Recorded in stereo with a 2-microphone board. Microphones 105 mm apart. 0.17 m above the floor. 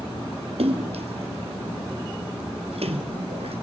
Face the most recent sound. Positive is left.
turn(degrees=-70)  # may be behind; listen again after turning